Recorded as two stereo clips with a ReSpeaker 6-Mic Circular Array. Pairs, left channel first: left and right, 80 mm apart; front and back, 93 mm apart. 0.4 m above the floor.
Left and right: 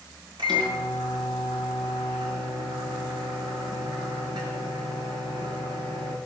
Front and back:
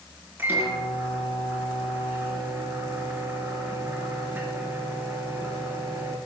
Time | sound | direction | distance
0.4 | a microwave | 110° right | 4.5 m